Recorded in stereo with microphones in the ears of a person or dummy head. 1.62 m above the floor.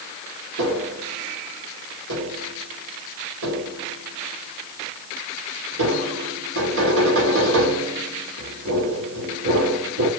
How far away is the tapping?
About 2.5 m.